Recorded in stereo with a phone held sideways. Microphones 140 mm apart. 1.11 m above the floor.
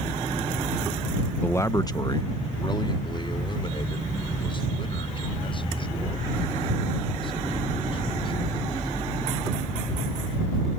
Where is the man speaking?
10° left (ahead or behind); by 8.5 s 40° left (ahead or behind).